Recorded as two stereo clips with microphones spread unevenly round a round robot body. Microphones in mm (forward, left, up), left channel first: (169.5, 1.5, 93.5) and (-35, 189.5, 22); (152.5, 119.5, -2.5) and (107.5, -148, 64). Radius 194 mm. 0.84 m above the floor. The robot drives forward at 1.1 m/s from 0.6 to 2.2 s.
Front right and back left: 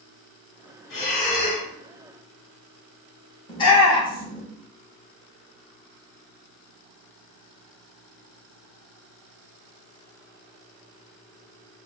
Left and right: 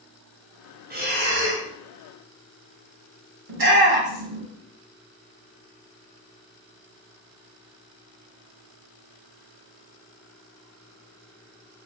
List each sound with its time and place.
0.9 s breathing: 40° right, 2 m; by 1.7 s 60° right, 1.5 m
3.5 s a shout: 125° right, 1.0 m